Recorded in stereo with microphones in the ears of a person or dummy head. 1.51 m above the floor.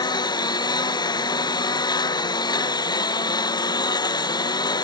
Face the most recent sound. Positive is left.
turn(degrees=25)  # may be behind; listen again after turning